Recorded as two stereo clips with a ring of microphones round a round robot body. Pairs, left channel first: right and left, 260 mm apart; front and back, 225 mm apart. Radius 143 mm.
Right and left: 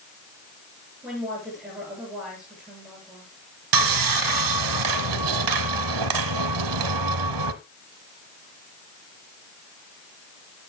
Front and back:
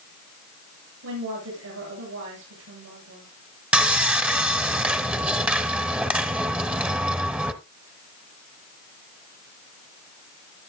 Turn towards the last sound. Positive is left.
turn(degrees=95)